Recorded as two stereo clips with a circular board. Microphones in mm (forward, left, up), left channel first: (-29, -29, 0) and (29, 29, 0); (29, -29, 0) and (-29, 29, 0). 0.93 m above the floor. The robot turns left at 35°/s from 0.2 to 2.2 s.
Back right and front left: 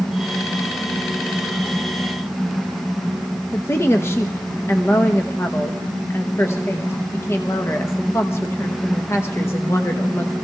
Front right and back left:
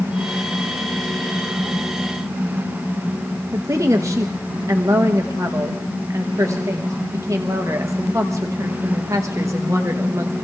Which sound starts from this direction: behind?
A woman speaking, at 3.5 s.